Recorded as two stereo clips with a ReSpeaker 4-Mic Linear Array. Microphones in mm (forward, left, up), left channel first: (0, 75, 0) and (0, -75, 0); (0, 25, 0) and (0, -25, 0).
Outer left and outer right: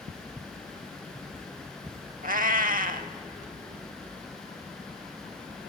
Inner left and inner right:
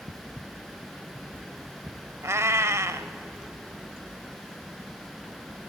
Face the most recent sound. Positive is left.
turn(degrees=-70)  # may be behind; listen again after turning